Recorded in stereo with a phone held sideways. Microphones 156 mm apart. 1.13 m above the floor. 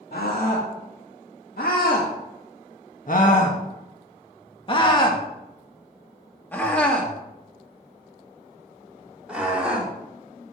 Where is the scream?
75° left (ahead or behind), 2.5 m; by 10.5 s 10° right (ahead or behind), 4 m.